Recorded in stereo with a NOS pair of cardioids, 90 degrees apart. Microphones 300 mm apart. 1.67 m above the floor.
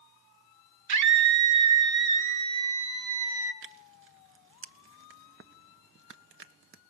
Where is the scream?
70° right, 4.5 m; by 3.5 s 50° right, 5.5 m.